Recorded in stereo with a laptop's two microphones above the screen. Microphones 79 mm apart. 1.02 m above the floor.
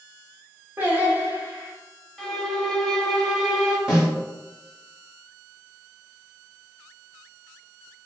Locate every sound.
0.8 s singing: 20° right (ahead or behind), 0.7 m
2.2 s a violin: centre (ahead or behind), 0.9 m
3.9 s a snare drum: 10° right (ahead or behind), 0.9 m